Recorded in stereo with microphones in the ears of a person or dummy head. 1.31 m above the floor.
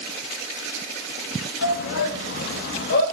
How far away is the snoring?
I don't hear snoring.